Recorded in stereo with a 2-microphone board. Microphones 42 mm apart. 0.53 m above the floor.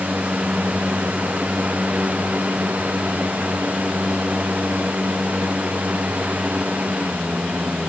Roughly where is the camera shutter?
I don't hear a camera shutter.